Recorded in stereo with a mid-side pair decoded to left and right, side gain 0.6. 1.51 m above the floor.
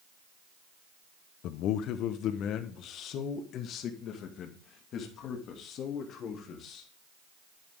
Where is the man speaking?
65° left, 0.9 m; by 6.9 s 55° left, 3.5 m.